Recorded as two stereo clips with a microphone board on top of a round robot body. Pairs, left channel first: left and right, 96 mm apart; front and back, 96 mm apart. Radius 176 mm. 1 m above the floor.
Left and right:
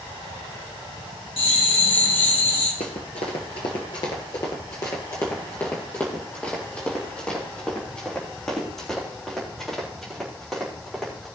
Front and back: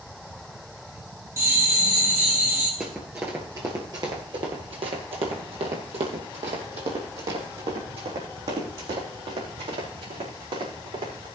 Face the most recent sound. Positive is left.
turn(degrees=180)